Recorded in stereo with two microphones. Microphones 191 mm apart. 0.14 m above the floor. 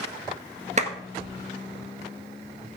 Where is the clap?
40° right (ahead or behind), 1.6 m.